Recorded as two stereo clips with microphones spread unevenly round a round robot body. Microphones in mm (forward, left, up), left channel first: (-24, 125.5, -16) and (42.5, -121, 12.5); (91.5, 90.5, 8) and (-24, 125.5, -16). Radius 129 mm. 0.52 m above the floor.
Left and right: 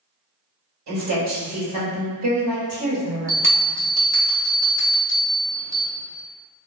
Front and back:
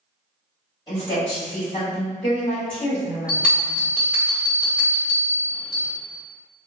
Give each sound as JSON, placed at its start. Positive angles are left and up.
{"t": 0.9, "sound": "a woman speaking", "azimuth_deg": -85, "distance_m": 1.6}
{"t": 3.3, "sound": "a bell", "azimuth_deg": -130, "distance_m": 1.0}